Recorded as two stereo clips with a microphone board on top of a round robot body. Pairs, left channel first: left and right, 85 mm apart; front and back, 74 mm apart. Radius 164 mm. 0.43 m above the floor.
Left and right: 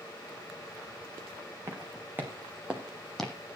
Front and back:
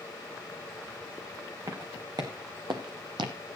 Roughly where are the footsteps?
Behind right.